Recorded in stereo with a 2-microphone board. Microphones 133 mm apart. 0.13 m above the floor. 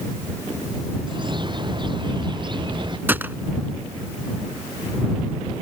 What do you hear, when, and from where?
1.1 s a bird: 35° right (ahead or behind)
3.1 s a gunshot: 15° right (ahead or behind)